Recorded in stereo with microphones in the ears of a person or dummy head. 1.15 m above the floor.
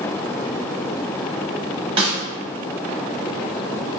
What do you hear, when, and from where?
2.0 s a snare drum: 35° right (ahead or behind), 1.1 m